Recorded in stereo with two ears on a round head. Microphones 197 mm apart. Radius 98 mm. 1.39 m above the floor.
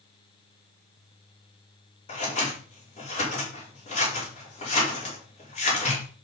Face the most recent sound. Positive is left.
turn(degrees=30)  # may be behind; listen again after turning